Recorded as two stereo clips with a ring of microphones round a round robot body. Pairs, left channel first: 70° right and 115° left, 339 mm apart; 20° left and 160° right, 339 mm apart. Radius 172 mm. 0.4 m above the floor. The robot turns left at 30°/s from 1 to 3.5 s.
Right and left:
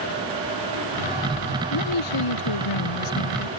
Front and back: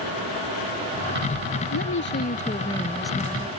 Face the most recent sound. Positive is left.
turn(degrees=-80)